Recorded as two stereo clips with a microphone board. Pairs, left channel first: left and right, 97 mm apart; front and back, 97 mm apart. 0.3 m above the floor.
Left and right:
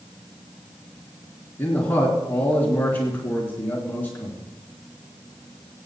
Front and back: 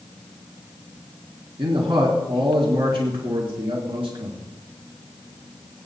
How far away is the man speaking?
About 3.5 m.